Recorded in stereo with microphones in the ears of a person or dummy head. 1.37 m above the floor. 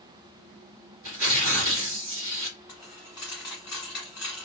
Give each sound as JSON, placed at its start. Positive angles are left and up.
{"t": 1.0, "sound": "tearing paper", "side_deg": -70, "distance_m": 1.9}
{"t": 2.7, "sound": "a dropped coin", "side_deg": 0, "distance_m": 1.3}